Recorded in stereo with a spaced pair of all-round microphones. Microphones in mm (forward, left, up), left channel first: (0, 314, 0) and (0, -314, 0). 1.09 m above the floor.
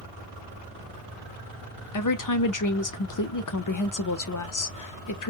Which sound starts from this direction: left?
A woman speaking, at 1.9 s.